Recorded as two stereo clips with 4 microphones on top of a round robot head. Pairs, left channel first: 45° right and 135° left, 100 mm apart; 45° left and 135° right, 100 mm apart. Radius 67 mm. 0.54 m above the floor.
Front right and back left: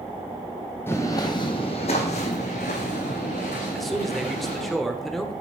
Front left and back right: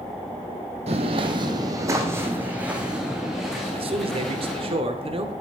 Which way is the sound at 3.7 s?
130° right.